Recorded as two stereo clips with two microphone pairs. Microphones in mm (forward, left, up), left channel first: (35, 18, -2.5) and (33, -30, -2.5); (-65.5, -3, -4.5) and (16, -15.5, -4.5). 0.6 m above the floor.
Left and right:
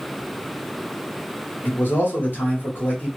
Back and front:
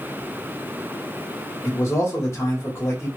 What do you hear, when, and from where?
1.6 s a man speaking: 120° left, 1.2 m